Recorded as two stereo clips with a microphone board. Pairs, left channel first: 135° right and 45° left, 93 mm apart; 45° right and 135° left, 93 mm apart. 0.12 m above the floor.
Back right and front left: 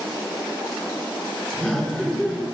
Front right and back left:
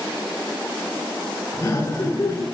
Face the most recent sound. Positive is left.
turn(degrees=-55)